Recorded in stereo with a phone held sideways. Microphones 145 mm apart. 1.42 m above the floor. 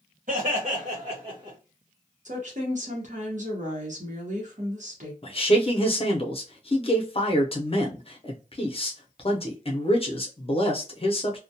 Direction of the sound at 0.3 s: 65° right (ahead or behind).